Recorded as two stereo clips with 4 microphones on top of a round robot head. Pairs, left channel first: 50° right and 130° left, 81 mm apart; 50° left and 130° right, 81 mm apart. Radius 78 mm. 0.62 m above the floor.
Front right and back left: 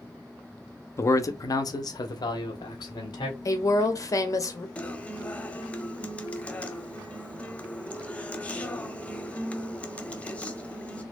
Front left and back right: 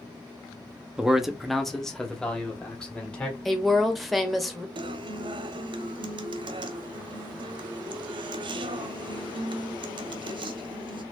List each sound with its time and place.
1.0 s a man speaking: 60° right, 0.7 m; by 3.4 s 30° right, 1.9 m
3.5 s a woman speaking: 40° right, 1.2 m
4.8 s a guitar: 120° right, 0.6 m